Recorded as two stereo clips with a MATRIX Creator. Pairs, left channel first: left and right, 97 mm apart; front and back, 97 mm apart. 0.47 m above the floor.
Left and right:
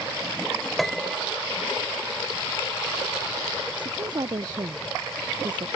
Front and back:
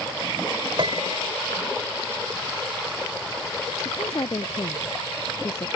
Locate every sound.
0.8 s a piano: straight behind
3.8 s a woman speaking: 50° right